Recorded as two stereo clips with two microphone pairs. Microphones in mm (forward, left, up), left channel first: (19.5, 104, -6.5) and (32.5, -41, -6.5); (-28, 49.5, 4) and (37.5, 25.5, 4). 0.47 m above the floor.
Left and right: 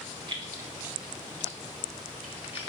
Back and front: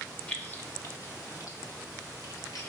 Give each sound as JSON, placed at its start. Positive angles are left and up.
{"t": 0.3, "sound": "keys jangling", "azimuth_deg": -130, "distance_m": 1.1}